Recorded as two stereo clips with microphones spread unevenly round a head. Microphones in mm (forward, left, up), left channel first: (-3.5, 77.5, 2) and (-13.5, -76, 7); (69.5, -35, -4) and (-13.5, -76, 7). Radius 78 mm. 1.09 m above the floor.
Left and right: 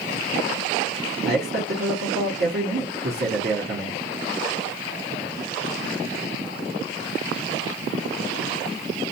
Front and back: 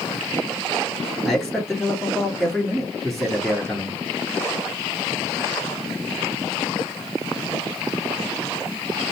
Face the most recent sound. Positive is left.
turn(degrees=-60)